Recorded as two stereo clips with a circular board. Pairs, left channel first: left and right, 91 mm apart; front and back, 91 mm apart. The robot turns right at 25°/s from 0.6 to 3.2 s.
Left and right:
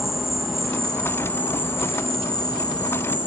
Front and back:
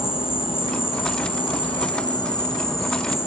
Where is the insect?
Straight ahead, 2 m; by 3.3 s 65° left, 2 m.